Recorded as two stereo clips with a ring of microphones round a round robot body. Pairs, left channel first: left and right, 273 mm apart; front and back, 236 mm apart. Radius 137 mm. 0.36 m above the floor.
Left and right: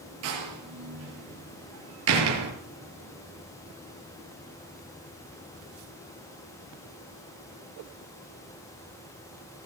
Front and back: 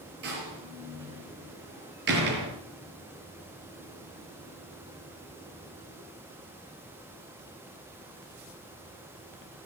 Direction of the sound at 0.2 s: 125° right.